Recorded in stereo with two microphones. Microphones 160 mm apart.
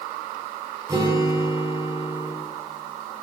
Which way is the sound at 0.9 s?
20° right (ahead or behind).